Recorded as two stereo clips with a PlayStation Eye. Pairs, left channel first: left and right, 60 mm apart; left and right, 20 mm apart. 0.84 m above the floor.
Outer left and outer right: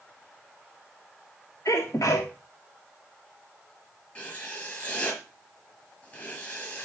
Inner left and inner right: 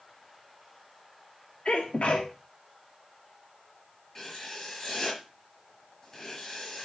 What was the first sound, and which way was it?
A sneeze, 70° left (ahead or behind).